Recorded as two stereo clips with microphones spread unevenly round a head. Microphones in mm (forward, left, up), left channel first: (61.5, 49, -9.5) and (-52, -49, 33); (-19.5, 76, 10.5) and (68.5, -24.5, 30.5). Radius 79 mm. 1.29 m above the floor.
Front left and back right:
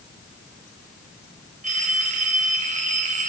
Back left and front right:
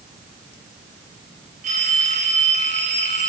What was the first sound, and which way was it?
A phone ringing, 95° right.